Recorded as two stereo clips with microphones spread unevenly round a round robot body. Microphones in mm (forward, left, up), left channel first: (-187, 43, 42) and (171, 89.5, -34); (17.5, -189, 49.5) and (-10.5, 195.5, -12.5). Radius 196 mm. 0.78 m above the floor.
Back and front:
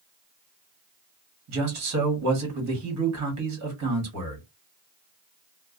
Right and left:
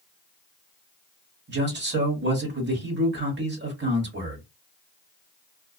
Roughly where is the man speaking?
Ahead left.